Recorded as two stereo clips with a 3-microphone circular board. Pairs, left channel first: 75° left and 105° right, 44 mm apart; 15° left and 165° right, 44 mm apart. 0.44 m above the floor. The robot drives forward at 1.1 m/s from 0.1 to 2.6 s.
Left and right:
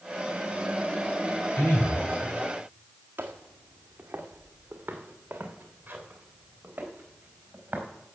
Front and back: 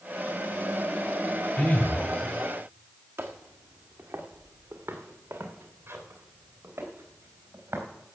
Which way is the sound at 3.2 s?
150° right.